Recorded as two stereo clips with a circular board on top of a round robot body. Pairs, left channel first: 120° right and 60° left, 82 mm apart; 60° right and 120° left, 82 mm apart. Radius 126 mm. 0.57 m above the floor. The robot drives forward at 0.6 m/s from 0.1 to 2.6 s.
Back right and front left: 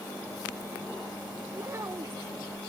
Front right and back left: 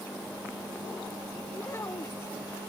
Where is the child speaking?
Straight ahead.